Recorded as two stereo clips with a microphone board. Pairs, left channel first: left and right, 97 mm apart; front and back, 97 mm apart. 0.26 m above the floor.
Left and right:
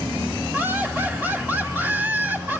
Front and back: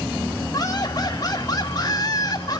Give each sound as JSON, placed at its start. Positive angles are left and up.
{"t": 0.5, "sound": "laughter", "azimuth_deg": -25, "distance_m": 1.8}